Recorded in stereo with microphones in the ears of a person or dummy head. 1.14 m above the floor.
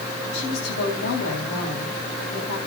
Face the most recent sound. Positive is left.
turn(degrees=65)  # may be behind; listen again after turning